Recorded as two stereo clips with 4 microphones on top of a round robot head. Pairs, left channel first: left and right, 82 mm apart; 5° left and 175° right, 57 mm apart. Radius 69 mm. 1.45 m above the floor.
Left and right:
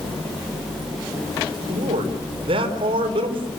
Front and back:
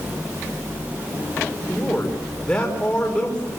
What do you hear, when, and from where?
1.7 s a man speaking: 75° right, 5 m